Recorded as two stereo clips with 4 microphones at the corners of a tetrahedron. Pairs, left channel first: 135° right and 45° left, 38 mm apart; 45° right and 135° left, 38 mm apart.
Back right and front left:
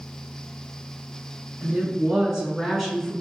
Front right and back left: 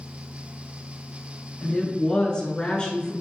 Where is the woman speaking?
10° left, 1.6 m; by 3.1 s 65° right, 1.4 m.